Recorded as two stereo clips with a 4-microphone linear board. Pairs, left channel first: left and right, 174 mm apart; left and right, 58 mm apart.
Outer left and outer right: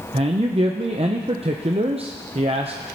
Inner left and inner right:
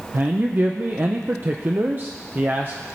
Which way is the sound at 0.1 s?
35° right (ahead or behind).